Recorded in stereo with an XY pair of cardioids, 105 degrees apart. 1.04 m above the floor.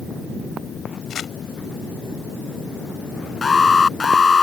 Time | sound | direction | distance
1.1 | crumpling | 55° left | ?
3.4 | an alarm | 30° left | ?